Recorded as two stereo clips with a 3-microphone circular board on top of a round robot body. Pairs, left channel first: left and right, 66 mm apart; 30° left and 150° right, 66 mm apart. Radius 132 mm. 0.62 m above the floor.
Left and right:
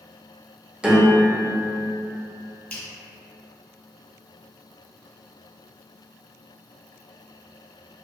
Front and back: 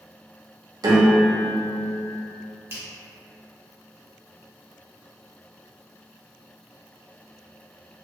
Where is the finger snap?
160° left, 1.0 m.